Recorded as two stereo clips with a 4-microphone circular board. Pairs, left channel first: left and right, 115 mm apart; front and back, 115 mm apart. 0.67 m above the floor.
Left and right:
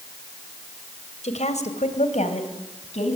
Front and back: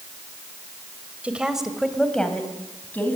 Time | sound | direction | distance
1.2 | a woman speaking | 100° left | 3 m